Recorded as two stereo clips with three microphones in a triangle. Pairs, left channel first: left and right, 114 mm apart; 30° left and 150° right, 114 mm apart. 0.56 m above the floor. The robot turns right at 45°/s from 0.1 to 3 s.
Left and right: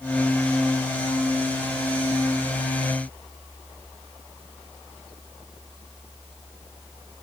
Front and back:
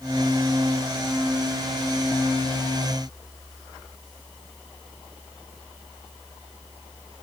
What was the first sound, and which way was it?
Only background noise.